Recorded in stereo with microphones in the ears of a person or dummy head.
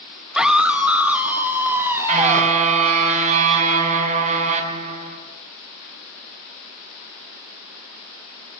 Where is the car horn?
40° right (ahead or behind), 5 m.